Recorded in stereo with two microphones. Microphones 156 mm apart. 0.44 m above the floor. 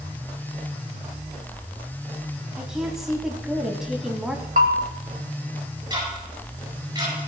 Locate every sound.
2.6 s a woman speaking: 5° right (ahead or behind), 2.5 m
4.6 s a bell: 55° right (ahead or behind), 1.3 m
5.9 s ticking: 25° right (ahead or behind), 8.5 m